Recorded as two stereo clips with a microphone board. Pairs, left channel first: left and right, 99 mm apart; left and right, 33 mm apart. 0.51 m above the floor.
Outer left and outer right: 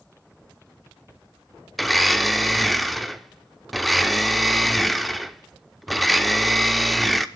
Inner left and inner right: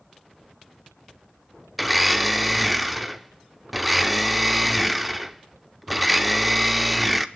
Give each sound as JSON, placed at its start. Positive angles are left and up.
{"t": 1.8, "sound": "a blender", "side_deg": 0, "distance_m": 0.6}